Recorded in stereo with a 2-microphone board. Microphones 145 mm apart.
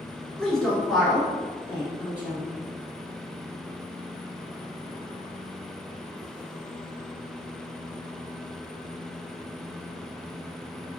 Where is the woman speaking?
5° left (ahead or behind), 1.2 m; by 2.5 s 10° right (ahead or behind), 2.0 m.